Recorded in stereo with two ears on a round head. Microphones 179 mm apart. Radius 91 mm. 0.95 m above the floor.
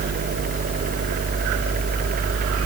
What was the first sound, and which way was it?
Only background noise.